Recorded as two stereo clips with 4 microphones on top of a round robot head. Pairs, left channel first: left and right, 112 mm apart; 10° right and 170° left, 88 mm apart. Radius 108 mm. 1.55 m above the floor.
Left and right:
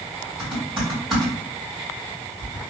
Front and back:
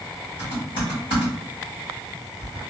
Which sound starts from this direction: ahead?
Typing on a keyboard, at 0.4 s.